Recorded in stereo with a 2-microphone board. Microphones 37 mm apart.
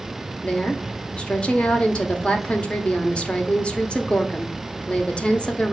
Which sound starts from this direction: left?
A woman speaking, at 0.4 s.